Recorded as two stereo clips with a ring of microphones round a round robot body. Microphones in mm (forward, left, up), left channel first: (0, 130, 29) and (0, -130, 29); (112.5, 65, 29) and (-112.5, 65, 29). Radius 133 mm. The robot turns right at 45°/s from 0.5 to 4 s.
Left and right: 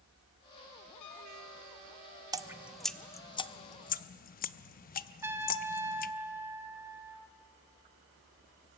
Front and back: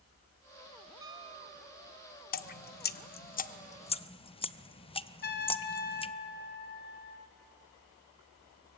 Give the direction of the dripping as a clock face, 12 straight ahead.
1 o'clock.